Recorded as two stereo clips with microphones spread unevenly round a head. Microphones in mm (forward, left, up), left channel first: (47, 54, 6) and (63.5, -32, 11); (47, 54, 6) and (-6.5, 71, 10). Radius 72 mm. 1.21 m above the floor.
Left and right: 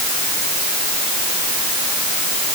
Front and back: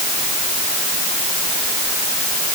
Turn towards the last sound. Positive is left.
No sound to turn to.